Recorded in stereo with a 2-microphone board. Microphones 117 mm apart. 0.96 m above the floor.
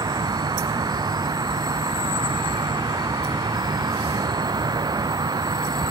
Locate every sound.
0.0 s an insect: 35° right (ahead or behind)